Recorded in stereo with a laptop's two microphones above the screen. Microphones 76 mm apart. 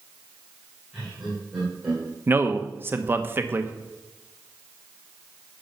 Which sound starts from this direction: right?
A man speaking, at 2.3 s.